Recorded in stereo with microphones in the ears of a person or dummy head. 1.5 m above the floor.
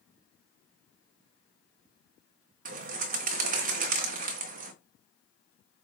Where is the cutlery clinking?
No cutlery clinking in this recording.